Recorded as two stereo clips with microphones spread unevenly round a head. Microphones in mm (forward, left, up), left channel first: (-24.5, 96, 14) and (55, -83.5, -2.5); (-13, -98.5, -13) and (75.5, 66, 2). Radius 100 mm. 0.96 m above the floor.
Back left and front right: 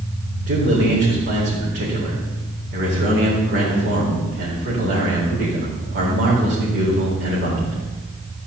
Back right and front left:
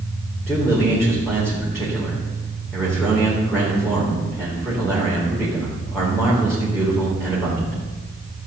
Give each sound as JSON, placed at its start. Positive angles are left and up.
{"t": 0.5, "sound": "a man speaking", "azimuth_deg": -35, "distance_m": 4.0}